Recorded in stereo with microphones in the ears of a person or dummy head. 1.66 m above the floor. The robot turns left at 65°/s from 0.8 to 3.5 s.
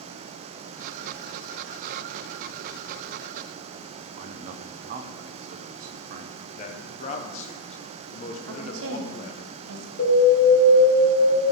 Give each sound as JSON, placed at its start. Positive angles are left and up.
{"t": 4.2, "sound": "a man speaking", "side_deg": -50, "distance_m": 0.8}
{"t": 6.5, "sound": "a man speaking", "side_deg": 40, "distance_m": 1.1}
{"t": 8.4, "sound": "a woman speaking", "side_deg": -80, "distance_m": 1.5}
{"t": 10.0, "sound": "an alarm", "side_deg": 80, "distance_m": 3.5}